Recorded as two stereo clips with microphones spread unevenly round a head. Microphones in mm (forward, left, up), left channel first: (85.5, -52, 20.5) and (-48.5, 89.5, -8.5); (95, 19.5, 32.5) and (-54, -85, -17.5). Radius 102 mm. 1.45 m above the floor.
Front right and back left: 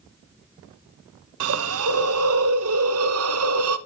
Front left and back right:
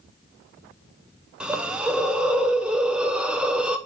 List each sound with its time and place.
1.4 s a hiss: 130° left, 0.6 m